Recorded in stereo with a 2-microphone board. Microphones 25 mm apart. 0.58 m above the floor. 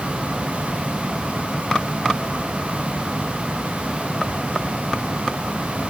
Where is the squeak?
I don't hear a squeak.